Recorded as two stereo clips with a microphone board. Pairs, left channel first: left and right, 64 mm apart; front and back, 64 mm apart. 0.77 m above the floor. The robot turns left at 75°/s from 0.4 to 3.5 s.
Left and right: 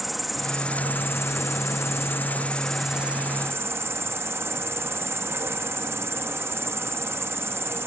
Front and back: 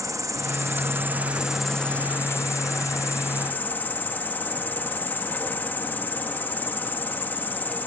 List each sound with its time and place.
0.0 s an insect: straight behind; by 7.9 s 55° right